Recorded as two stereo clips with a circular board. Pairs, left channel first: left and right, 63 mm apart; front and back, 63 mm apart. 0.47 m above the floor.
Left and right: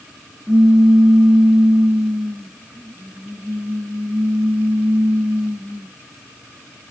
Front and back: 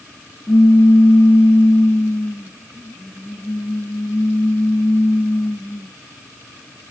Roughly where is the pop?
Ahead.